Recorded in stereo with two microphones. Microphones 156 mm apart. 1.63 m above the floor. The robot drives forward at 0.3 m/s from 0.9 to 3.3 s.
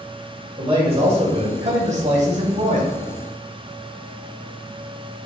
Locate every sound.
0.6 s a man speaking: 35° right (ahead or behind), 1.6 m; by 3.0 s 55° right (ahead or behind), 1.2 m